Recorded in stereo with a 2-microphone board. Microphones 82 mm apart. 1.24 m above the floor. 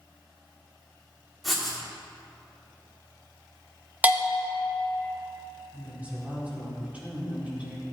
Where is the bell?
15° right (ahead or behind), 1.2 m.